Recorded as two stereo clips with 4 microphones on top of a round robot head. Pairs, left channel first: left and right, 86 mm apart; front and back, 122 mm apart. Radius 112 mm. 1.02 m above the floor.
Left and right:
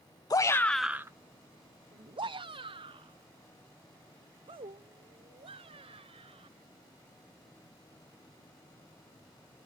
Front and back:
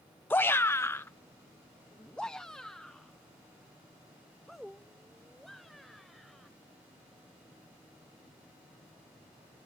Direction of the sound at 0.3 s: 70° left.